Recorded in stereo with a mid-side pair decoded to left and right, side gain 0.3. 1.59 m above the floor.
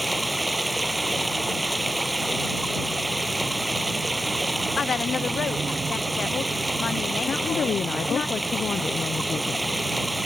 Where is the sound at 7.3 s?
70° left.